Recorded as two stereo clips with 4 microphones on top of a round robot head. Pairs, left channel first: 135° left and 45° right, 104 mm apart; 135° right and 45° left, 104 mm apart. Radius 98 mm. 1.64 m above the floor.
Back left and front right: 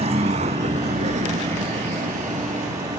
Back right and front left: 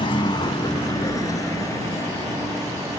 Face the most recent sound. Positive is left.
turn(degrees=-65)